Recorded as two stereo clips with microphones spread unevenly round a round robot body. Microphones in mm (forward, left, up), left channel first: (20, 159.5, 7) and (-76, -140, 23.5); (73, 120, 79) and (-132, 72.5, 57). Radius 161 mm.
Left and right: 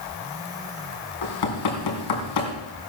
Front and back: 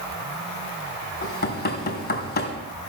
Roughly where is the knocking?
Ahead left.